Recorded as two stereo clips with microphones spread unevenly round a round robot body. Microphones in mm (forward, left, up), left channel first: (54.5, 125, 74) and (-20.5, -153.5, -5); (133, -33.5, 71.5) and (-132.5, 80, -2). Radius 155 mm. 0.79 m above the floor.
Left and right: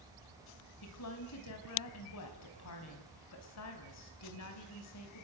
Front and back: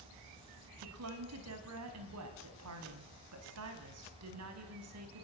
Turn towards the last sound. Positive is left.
turn(degrees=120)